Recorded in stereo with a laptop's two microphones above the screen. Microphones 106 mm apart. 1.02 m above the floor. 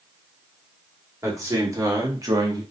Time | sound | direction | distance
1.2 | a man speaking | 30° right (ahead or behind) | 2.5 m